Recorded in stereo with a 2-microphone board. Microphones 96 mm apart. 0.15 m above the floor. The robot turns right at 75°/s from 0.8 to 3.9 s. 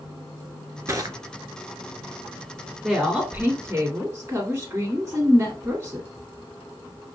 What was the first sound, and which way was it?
Crushing, 35° right (ahead or behind).